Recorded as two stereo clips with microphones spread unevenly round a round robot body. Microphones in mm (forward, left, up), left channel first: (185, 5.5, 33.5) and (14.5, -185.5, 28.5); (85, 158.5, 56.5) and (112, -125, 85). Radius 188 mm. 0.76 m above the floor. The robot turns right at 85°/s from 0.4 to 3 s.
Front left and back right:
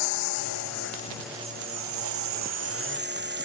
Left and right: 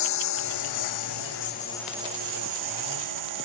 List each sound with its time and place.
0.0 s a lawn mower: 75° left; by 3.4 s 90° right